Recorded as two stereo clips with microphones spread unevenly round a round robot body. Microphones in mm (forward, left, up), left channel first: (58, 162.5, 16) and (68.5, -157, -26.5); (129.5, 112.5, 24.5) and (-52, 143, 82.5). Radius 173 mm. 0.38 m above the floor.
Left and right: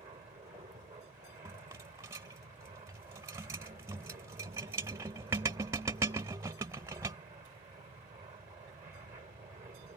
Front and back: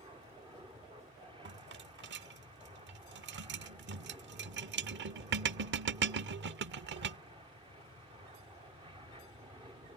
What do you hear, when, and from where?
0.0 s an aircraft: 125° right
1.4 s a rattle: 160° right